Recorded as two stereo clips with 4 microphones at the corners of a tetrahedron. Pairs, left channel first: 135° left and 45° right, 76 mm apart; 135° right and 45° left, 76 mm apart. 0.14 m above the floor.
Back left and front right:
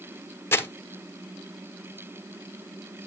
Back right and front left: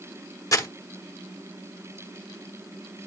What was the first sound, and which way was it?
Crumpling, 175° right.